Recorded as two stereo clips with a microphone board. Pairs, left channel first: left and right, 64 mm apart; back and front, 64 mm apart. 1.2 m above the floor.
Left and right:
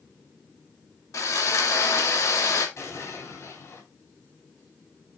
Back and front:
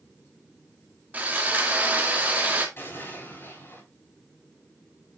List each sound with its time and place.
1.1 s sawing: 60° left, 1.8 m
2.8 s an explosion: 130° left, 3.5 m